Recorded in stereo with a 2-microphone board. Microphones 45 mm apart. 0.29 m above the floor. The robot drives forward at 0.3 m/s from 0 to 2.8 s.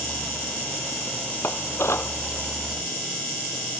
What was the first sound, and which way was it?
Dishes clattering, 60° left (ahead or behind).